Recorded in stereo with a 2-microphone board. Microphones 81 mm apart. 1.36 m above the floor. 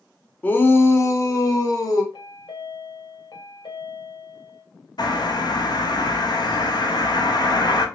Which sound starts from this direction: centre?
A shout, at 0.4 s.